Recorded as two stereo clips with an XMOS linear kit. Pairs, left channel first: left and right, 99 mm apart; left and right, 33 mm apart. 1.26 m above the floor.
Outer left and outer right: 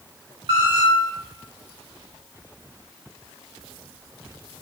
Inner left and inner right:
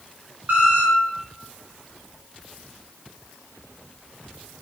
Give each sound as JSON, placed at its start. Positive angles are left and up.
{"t": 0.5, "sound": "a squeak", "side_deg": -60, "distance_m": 0.6}